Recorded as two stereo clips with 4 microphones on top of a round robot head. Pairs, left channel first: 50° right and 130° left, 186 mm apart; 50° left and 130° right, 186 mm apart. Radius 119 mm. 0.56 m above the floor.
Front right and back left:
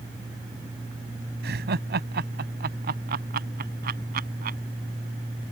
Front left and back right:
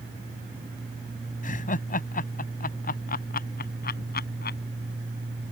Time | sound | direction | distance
1.4 | laughter | 95° left | ?